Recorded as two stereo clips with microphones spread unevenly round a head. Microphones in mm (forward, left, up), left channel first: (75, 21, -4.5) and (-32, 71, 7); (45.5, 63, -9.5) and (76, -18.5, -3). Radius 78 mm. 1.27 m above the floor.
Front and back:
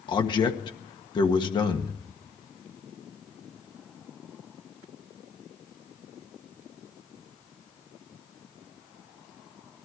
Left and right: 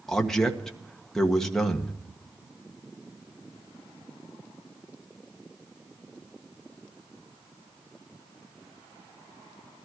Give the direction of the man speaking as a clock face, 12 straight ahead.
11 o'clock.